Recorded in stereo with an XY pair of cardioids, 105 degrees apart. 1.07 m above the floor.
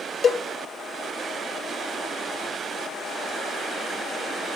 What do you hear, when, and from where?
0.2 s a cowbell: 40° left, 0.5 m